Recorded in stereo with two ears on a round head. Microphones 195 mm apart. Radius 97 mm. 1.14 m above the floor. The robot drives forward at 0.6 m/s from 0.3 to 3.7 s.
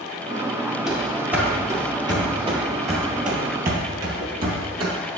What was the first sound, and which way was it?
Running footsteps, centre (ahead or behind).